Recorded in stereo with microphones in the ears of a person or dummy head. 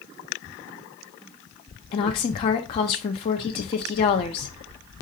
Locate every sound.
1.9 s a woman speaking: 25° left (ahead or behind), 0.5 m